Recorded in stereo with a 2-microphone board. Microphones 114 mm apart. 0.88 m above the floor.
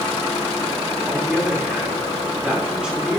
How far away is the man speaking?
About 3 m.